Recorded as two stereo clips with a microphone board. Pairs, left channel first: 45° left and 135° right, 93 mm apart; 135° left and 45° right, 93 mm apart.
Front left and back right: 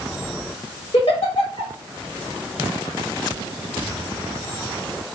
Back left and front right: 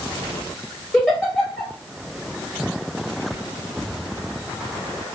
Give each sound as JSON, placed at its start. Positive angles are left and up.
{"t": 0.9, "sound": "a giggle", "azimuth_deg": 55, "distance_m": 1.3}